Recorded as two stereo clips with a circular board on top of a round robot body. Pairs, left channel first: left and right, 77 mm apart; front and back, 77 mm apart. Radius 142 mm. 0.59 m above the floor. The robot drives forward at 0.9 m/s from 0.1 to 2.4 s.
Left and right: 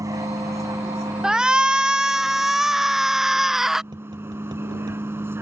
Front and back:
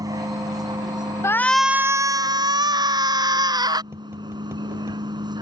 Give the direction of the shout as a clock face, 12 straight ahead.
12 o'clock.